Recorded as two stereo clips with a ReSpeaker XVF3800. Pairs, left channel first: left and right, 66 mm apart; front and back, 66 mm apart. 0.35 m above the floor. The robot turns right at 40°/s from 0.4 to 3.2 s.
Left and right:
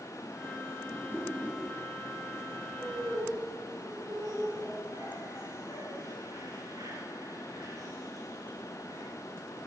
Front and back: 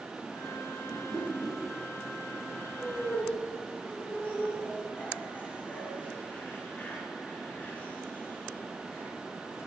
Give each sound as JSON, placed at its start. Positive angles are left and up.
{"t": 0.9, "sound": "a whoosh", "azimuth_deg": 135, "distance_m": 5.5}
{"t": 2.8, "sound": "laughter", "azimuth_deg": -85, "distance_m": 5.0}